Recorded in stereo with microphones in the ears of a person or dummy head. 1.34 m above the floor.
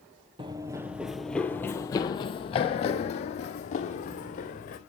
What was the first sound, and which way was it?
Running footsteps, 25° right (ahead or behind).